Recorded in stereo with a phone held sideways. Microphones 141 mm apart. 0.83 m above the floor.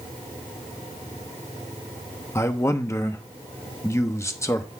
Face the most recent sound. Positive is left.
turn(degrees=20)  # may be behind; listen again after turning